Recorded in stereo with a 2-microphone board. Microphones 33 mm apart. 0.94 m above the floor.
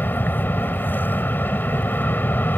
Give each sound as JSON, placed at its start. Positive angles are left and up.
{"t": 0.0, "sound": "an aircraft", "side_deg": 75}